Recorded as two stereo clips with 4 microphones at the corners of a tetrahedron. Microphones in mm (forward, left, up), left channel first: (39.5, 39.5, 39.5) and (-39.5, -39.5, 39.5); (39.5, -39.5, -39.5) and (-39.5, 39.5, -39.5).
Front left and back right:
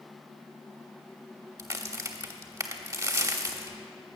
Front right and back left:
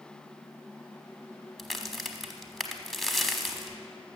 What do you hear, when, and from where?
1.6 s a crack: 135° right, 1.0 m